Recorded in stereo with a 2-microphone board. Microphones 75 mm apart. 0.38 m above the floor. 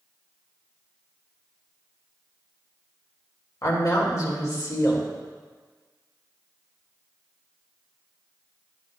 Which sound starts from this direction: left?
A woman speaking, at 3.6 s.